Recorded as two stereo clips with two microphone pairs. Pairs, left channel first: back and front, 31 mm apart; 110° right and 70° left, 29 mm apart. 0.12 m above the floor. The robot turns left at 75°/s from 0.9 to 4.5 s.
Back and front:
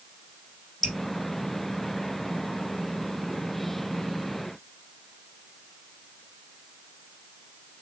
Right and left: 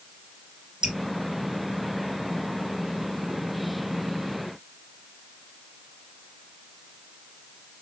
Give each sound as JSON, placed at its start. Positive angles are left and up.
{"t": 0.8, "sound": "dripping", "azimuth_deg": 95, "distance_m": 1.7}